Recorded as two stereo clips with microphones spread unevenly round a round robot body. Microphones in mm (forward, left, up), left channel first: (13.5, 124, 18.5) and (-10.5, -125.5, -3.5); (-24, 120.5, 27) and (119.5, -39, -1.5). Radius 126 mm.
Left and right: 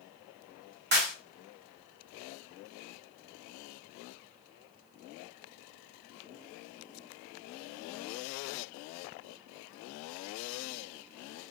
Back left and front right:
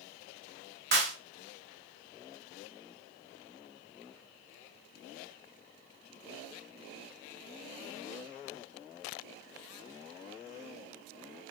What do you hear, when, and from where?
0.9 s a clap: 65° right, 1.3 m